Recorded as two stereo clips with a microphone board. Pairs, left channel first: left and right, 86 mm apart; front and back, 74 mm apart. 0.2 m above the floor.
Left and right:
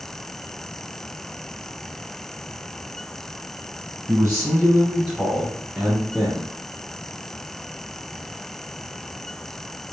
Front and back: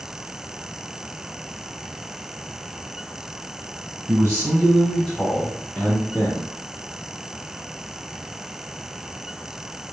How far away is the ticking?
No ticking in this recording.